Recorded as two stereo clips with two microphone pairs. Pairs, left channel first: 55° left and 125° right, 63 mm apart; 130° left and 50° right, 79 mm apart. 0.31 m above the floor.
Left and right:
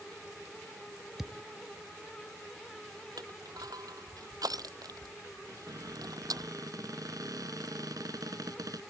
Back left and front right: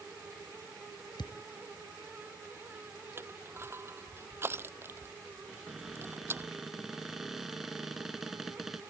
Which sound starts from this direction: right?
Crushing, at 3.2 s.